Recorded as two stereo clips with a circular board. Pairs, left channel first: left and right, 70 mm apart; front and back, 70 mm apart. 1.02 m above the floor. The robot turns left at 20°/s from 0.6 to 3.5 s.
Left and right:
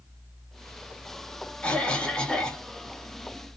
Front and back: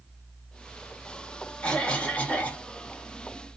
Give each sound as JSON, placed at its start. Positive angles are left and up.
{"t": 1.6, "sound": "a cough", "azimuth_deg": 45, "distance_m": 0.6}